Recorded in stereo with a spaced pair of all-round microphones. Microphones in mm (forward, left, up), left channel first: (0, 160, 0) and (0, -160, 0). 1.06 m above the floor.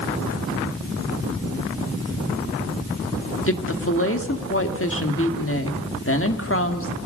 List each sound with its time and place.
3.5 s a woman speaking: 40° left (ahead or behind), 2 m